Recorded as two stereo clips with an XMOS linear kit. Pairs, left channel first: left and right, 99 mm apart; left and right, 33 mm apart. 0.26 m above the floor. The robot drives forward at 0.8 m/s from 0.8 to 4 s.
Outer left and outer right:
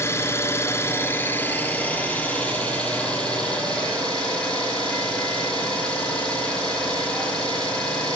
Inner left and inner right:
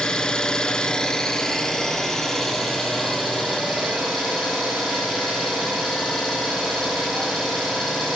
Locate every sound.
0.0 s an engine running: 25° left (ahead or behind), 1.2 m; by 8.2 s 10° left (ahead or behind), 3.5 m